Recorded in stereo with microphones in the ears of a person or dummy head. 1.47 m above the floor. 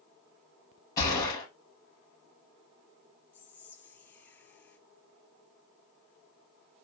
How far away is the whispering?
About 0.6 m.